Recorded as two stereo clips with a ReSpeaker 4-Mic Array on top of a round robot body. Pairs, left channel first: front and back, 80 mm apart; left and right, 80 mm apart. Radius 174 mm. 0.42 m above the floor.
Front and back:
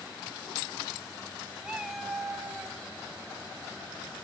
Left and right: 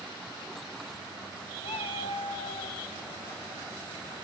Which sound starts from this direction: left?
A cat meowing, at 1.6 s.